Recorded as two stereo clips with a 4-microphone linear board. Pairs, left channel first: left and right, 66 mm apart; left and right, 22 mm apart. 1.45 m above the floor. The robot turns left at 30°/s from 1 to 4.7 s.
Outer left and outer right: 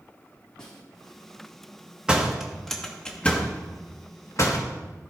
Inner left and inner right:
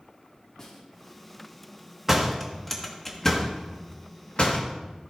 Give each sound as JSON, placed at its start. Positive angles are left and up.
{"t": 0.6, "sound": "a snare drum", "side_deg": 10, "distance_m": 1.8}
{"t": 2.1, "sound": "a door slam", "side_deg": -15, "distance_m": 1.5}